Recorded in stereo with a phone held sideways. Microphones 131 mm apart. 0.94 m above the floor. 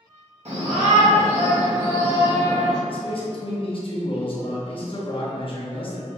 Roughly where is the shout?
Right.